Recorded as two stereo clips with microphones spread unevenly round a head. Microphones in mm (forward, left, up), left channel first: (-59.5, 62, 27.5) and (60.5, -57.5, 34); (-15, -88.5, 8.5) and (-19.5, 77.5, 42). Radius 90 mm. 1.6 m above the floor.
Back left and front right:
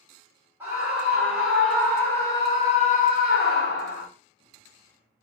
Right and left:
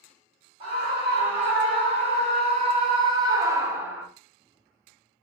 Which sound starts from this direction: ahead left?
A scream, at 0.6 s.